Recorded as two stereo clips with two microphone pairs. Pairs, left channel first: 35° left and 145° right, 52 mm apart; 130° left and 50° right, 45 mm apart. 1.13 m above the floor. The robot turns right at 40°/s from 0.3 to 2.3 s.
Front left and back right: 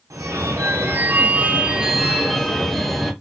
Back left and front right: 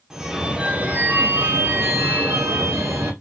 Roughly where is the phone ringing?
Behind right.